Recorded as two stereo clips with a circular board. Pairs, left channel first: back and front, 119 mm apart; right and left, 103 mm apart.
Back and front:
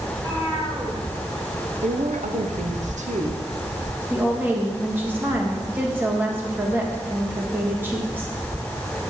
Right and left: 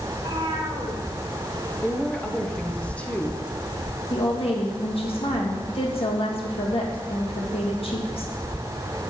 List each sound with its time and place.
0.1 s a cat meowing: 55° left, 2.5 m
1.8 s a woman speaking: 15° right, 0.9 m
4.1 s a woman speaking: 70° right, 1.6 m